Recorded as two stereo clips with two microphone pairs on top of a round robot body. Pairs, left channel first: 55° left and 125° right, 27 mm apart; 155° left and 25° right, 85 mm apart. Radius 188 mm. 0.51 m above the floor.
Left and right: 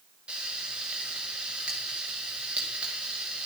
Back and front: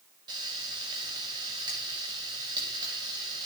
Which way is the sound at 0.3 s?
70° right.